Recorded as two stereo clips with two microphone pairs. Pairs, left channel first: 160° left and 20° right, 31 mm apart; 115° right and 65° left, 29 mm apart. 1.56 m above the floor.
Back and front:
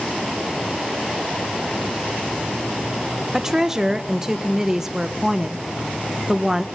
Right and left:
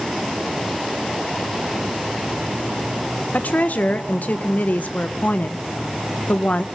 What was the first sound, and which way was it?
A woman speaking, 95° right.